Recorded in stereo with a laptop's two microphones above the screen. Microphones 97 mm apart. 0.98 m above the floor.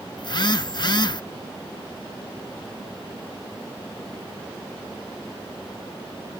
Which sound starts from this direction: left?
A phone buzzing, at 0.2 s.